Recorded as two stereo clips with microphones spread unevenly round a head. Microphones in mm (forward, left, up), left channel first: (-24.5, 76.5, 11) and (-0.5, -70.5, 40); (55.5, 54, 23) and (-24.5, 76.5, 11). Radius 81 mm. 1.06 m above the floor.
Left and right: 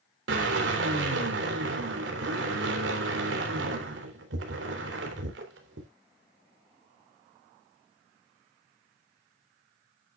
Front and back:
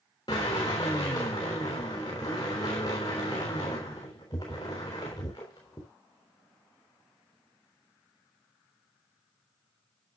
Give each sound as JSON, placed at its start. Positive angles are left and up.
{"t": 0.3, "sound": "a drill", "azimuth_deg": -80, "distance_m": 3.5}